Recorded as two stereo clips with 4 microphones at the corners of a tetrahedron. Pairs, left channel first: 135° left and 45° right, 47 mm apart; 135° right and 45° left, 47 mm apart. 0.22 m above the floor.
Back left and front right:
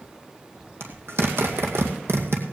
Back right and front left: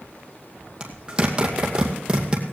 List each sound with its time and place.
0.8 s a zipper: 20° right, 2.5 m